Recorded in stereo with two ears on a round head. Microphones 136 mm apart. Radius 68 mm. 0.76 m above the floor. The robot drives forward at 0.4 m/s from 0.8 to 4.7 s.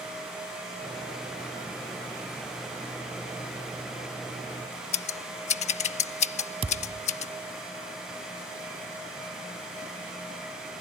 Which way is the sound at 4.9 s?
45° left (ahead or behind).